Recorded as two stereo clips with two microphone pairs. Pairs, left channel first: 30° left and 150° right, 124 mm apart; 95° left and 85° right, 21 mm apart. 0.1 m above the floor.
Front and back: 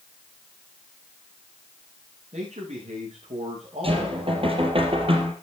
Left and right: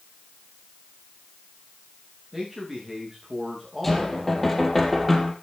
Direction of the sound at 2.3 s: 170° right.